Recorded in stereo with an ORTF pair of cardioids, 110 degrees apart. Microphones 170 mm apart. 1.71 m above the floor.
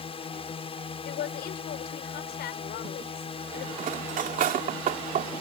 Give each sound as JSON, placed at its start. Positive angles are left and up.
{"t": 0.0, "sound": "a drone", "azimuth_deg": 35}
{"t": 1.1, "sound": "a woman speaking", "azimuth_deg": 70}
{"t": 3.8, "sound": "cutlery clinking", "azimuth_deg": -55}